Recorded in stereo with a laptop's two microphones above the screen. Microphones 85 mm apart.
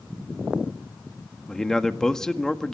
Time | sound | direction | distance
1.5 | a man speaking | 5° left (ahead or behind) | 1.7 m